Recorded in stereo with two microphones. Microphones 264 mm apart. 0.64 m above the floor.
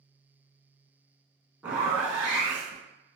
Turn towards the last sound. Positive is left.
turn(degrees=-5)  # may be behind; listen again after turning